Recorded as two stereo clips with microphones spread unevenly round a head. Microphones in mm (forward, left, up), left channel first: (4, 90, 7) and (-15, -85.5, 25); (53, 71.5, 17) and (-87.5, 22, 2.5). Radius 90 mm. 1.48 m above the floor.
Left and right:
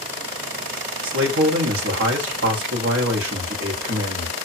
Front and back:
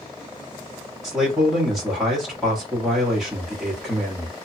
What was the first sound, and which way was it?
A man speaking, 75° right.